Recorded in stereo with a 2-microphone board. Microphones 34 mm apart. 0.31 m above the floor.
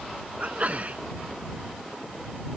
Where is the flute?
I don't hear a flute.